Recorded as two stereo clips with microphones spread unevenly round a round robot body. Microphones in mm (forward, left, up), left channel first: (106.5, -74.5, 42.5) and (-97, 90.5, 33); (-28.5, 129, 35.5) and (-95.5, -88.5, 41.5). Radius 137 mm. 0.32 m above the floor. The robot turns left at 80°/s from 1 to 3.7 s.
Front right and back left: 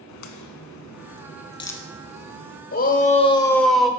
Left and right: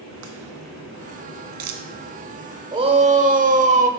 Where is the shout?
50° right, 1.2 m; by 3.9 s 130° right, 1.2 m.